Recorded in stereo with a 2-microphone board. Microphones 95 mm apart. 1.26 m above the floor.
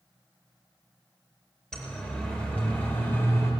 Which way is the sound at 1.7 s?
5° left (ahead or behind).